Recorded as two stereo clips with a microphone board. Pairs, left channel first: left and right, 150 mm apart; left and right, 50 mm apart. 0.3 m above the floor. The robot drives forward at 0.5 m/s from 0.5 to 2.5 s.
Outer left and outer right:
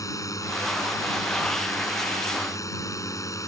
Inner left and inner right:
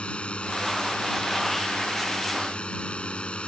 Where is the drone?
20° left (ahead or behind).